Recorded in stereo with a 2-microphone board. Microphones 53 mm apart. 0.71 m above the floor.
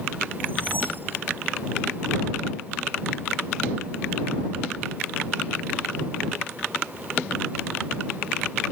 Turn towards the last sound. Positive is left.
turn(degrees=-40)  # may be behind; listen again after turning